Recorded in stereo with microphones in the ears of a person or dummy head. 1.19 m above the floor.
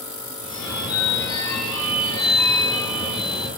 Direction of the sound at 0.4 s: 15° left (ahead or behind).